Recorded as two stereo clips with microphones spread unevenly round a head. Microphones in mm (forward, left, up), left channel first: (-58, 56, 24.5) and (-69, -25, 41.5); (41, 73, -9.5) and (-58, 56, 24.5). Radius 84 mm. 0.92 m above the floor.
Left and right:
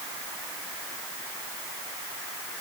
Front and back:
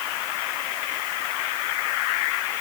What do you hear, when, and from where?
Only background noise.